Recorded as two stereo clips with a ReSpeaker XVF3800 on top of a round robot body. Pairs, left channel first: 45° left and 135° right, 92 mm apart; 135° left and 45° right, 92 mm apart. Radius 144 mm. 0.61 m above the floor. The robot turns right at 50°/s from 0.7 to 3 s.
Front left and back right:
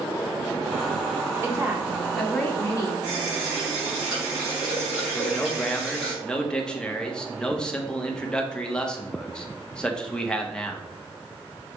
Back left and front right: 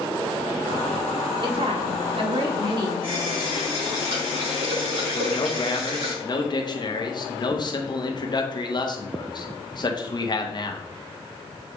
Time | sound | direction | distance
1.4 | a woman speaking | 80° right | 2 m
3.0 | a running tap | 55° right | 4 m
5.1 | a man speaking | 125° left | 1.6 m